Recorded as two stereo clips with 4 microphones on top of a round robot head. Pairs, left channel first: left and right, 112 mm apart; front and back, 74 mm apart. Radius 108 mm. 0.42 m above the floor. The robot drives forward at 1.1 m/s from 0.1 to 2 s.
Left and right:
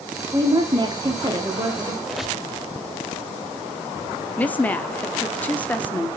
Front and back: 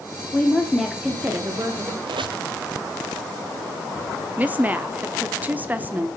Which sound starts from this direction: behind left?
A woman speaking, at 4.4 s.